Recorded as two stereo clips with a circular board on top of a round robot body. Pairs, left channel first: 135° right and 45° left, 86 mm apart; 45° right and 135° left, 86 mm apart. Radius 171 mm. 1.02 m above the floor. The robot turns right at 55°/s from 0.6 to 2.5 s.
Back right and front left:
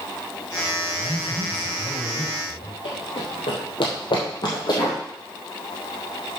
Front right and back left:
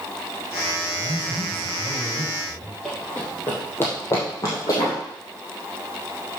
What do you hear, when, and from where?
0.9 s a man speaking: 160° left, 5 m; by 2.8 s 110° right, 5 m
2.9 s running footsteps: 130° right, 2.5 m; by 5.0 s 90° right, 2.5 m